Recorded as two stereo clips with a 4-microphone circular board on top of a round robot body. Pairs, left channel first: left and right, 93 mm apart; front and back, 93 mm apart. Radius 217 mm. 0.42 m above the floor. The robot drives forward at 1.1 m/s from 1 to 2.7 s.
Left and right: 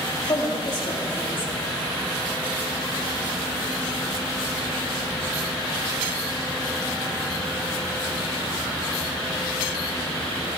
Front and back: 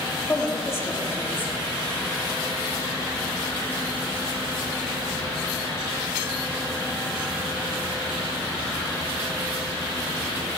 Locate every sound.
0.3 s a woman speaking: 60° left, 3.5 m; by 1.5 s 70° left, 3 m